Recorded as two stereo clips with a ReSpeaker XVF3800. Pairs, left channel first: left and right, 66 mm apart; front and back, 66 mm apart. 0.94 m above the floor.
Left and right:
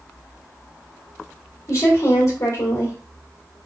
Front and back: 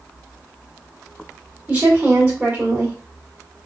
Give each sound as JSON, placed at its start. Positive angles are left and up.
{"t": 1.7, "sound": "a woman speaking", "azimuth_deg": 115, "distance_m": 2.5}